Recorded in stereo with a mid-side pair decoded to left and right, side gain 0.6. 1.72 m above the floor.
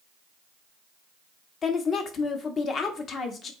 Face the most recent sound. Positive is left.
turn(degrees=40)